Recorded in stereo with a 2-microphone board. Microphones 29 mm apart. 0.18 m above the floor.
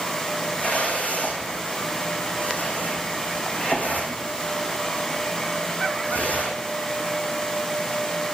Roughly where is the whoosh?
Left.